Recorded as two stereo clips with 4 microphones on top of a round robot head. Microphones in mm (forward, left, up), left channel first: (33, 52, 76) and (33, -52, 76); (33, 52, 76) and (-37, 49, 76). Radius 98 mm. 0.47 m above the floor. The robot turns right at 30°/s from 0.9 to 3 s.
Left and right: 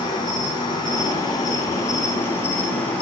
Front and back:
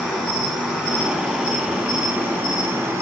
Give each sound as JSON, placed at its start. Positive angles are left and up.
{"t": 0.0, "sound": "an insect", "azimuth_deg": 100, "distance_m": 1.1}